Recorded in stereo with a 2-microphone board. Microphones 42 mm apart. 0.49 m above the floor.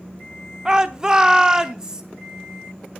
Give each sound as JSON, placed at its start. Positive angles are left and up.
{"t": 0.7, "sound": "a shout", "side_deg": -20, "distance_m": 0.9}